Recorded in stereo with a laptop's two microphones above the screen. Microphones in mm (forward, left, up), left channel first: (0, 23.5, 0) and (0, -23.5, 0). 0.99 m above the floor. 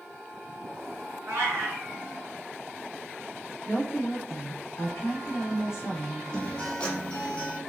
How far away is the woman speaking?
About 1.1 m.